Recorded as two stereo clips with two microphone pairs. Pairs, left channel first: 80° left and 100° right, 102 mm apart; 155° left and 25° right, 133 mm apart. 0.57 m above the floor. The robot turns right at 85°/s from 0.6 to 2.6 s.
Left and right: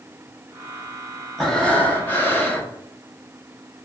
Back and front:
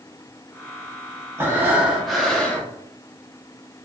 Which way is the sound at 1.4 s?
5° left.